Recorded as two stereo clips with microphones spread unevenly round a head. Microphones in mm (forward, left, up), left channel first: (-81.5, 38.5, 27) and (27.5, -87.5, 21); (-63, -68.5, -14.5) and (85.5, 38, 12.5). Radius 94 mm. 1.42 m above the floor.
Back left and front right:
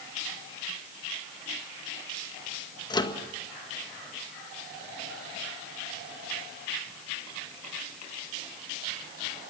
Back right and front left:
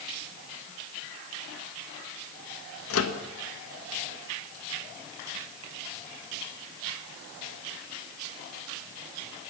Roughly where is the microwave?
Behind.